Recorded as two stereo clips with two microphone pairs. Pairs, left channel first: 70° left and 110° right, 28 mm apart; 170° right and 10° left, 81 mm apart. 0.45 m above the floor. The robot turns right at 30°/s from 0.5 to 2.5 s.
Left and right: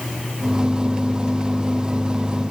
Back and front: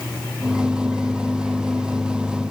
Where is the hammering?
I don't hear hammering.